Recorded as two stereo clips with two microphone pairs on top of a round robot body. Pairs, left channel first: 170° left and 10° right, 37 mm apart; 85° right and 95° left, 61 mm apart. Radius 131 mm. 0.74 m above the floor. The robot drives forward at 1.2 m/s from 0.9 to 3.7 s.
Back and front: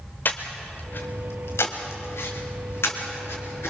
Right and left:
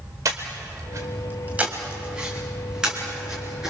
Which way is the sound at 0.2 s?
130° left.